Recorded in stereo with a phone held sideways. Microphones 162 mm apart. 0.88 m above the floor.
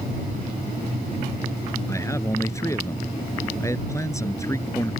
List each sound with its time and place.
1.9 s a man speaking: 15° left (ahead or behind)